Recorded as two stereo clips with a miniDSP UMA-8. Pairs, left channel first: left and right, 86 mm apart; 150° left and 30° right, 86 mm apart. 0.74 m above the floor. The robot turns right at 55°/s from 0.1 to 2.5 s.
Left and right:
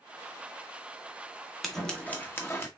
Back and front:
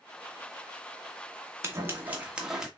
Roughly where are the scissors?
Ahead.